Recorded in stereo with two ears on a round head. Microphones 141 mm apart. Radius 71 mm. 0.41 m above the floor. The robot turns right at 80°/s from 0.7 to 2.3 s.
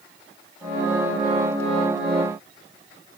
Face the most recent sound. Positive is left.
No sound to turn to.